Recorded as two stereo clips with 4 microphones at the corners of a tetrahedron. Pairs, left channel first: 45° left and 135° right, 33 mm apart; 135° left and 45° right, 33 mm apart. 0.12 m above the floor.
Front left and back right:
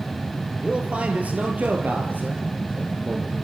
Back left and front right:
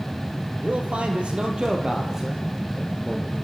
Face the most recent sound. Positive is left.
turn(degrees=-140)